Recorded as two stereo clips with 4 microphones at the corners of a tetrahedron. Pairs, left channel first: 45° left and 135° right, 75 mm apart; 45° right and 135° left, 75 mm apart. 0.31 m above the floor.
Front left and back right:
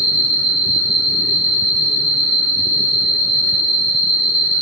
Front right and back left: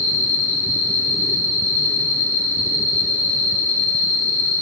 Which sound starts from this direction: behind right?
An insect, at 0.0 s.